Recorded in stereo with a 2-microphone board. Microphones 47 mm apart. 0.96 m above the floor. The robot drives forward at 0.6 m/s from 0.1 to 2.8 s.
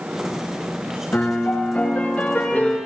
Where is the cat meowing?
No cat meowing in this recording.